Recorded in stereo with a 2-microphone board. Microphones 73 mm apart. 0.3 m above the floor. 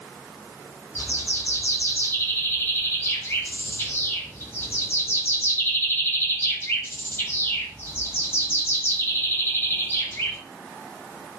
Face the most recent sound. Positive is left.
turn(degrees=35)  # may be behind; listen again after turning